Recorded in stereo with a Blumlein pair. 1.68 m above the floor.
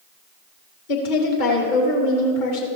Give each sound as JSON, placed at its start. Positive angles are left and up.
{"t": 0.9, "sound": "a woman speaking", "azimuth_deg": 50, "distance_m": 3.0}